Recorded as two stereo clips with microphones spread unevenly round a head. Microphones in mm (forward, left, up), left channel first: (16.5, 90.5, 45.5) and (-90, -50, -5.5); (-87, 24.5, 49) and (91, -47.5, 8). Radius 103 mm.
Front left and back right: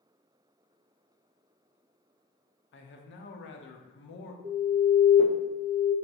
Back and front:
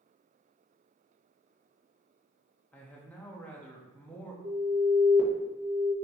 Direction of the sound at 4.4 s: 75° right.